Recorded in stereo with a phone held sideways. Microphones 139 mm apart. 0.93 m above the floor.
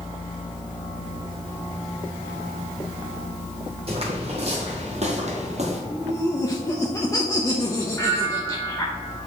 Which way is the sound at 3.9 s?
45° right (ahead or behind).